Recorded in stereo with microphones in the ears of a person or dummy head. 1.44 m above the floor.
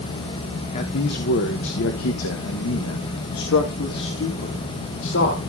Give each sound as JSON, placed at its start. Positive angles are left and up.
{"t": 0.7, "sound": "a man speaking", "side_deg": 35, "distance_m": 1.0}